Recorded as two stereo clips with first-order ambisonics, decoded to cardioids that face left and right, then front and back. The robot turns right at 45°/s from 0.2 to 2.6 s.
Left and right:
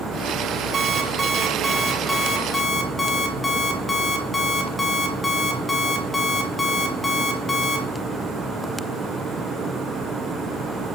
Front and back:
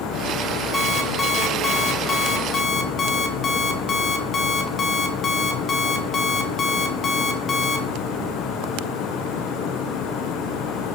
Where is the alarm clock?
70° right, 0.7 m; by 7.9 s 15° left, 0.7 m.